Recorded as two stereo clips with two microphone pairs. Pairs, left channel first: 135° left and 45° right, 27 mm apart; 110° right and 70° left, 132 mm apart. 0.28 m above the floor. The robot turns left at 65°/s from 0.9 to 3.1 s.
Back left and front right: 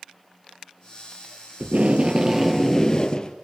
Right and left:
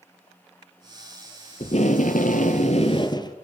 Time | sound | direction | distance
1.6 | tape being pulled | 65° right | 1.6 m